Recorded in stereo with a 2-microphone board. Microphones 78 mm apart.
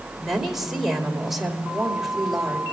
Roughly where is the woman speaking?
Centre.